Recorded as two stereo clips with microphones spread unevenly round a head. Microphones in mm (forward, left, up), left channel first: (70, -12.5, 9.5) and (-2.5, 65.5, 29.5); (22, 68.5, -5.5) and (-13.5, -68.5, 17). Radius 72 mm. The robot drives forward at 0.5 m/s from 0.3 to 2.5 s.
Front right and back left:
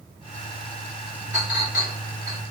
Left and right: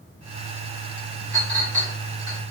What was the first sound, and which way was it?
A clink, 70° right.